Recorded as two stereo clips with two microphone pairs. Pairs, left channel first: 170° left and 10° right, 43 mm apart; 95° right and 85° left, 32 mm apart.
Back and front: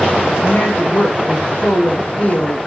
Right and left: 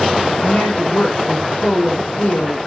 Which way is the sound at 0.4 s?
135° right.